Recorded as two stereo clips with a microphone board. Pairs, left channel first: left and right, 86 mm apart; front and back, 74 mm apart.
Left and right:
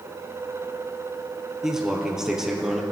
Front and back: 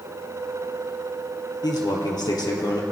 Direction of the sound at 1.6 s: 10° right.